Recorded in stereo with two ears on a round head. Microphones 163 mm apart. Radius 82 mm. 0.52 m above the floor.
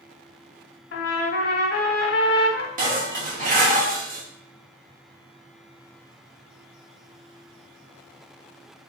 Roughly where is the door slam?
No door slam in this recording.